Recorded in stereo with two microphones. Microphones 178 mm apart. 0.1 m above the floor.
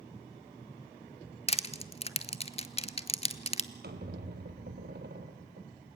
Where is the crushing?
35° left (ahead or behind), 0.8 m.